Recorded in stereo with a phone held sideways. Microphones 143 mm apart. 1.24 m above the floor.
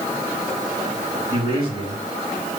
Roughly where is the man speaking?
Right.